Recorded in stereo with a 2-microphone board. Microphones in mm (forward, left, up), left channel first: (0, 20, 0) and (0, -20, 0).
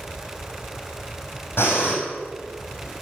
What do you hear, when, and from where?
1.6 s breathing: 75° left (ahead or behind), 4 m